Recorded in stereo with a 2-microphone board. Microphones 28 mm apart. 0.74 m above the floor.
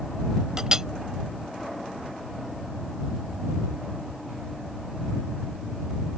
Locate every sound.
0.6 s a clink: 20° right (ahead or behind)